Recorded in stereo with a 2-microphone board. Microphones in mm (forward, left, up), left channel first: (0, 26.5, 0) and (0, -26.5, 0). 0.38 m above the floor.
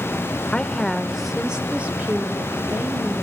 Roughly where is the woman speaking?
Left.